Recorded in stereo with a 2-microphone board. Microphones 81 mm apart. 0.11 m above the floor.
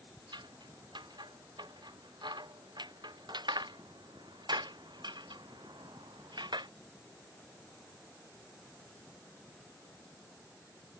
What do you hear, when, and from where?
0.3 s scissors: 70° right (ahead or behind)